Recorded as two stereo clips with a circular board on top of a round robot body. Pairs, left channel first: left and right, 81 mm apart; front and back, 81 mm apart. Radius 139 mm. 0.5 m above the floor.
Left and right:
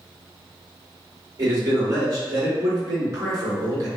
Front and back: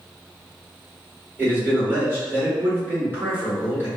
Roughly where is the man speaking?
Behind right.